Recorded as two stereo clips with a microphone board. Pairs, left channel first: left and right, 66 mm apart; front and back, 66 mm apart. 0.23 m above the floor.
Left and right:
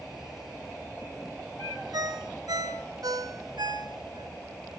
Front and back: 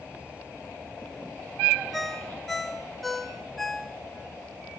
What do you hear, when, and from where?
1.9 s a ringtone: 90° right, 1.4 m